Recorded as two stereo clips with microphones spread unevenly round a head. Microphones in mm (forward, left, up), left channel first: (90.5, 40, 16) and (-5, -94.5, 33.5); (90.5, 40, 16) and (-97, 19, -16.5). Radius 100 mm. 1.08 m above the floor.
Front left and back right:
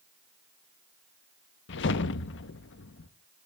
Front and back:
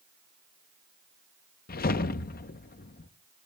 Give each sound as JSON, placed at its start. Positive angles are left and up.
{"t": 1.7, "sound": "a whoosh", "azimuth_deg": 45, "distance_m": 0.8}